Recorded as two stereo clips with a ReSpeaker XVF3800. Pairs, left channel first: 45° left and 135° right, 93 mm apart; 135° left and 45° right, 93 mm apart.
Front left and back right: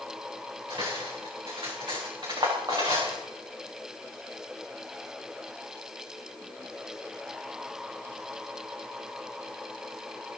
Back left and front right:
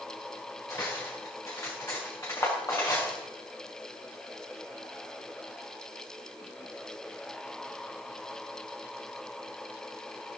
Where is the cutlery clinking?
170° right, 6.5 m.